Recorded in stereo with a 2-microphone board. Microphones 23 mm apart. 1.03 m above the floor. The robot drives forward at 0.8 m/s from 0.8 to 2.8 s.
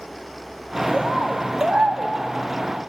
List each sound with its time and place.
0.9 s a bird: 60° right (ahead or behind), 2.5 m; by 2.1 s 70° right (ahead or behind), 2.5 m